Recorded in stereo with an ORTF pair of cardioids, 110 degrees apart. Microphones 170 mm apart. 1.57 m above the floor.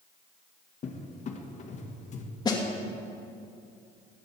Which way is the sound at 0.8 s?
45° left.